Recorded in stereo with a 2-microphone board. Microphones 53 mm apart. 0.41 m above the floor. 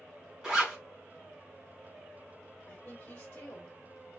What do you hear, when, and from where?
0.4 s a zipper: 15° right (ahead or behind), 2.5 m
2.7 s a woman speaking: 30° left (ahead or behind), 1.6 m